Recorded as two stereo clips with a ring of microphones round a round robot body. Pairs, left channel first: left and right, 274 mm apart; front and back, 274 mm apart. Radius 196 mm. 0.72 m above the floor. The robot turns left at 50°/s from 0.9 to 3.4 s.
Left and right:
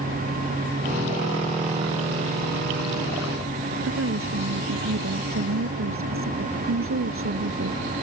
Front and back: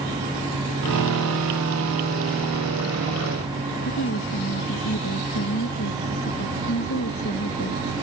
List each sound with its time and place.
3.8 s a woman speaking: 55° right